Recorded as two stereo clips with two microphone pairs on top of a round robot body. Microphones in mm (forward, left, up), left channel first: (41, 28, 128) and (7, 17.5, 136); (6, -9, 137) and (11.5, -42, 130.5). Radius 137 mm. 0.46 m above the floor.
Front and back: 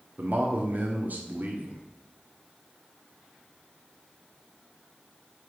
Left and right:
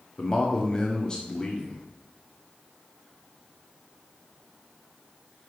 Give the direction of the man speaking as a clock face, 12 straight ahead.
6 o'clock.